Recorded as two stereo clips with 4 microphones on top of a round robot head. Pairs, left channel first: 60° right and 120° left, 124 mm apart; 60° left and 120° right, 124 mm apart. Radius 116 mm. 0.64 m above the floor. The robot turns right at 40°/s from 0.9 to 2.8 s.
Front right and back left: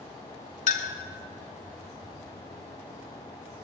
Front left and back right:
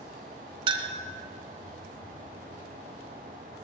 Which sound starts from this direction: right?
A clink, at 0.7 s.